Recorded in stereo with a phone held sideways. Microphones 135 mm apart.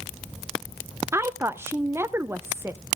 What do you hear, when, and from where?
1.1 s a woman speaking: 20° right (ahead or behind), 0.7 m